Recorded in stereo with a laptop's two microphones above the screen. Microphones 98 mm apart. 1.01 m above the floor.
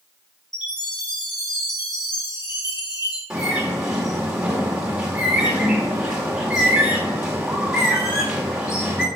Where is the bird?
10° right (ahead or behind), 2.5 m.